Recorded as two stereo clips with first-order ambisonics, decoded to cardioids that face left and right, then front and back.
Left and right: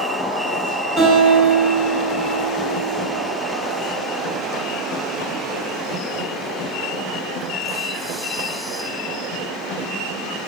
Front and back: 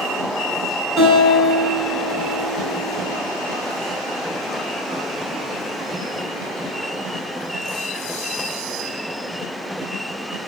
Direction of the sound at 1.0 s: 40° right.